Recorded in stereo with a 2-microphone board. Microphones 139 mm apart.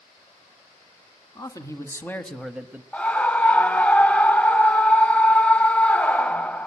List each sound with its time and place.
1.4 s a man speaking: 25° left (ahead or behind), 2 m; by 2.8 s 20° right (ahead or behind), 0.9 m
2.9 s a scream: 10° left (ahead or behind), 1.1 m